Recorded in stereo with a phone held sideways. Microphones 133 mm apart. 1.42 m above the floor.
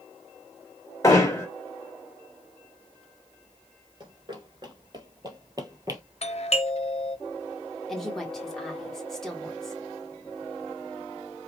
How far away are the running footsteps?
About 1.6 m.